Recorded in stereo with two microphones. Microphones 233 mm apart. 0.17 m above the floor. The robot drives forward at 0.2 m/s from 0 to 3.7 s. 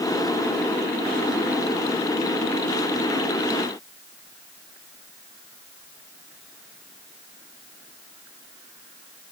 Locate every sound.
Only background noise.